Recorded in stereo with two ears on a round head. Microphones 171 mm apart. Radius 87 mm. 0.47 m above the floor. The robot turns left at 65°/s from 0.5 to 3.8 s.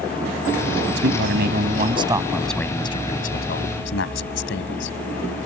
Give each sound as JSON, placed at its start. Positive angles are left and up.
{"t": 1.0, "sound": "a man speaking", "azimuth_deg": -85}